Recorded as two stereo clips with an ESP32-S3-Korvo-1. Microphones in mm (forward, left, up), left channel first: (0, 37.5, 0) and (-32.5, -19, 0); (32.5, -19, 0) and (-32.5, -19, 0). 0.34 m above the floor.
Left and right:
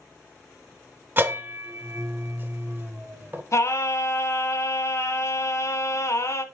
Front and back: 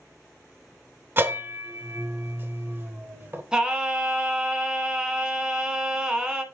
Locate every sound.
1.2 s a bell: 150° right, 0.8 m
3.5 s singing: 105° left, 0.9 m